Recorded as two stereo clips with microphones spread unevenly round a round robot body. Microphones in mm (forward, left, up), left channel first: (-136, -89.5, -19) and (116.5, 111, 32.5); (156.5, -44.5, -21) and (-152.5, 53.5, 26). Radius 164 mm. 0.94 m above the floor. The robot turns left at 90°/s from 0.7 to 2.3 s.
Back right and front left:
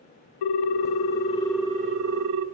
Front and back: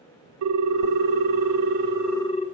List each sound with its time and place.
0.4 s a ringtone: 160° right, 0.6 m; by 2.5 s 55° left, 0.6 m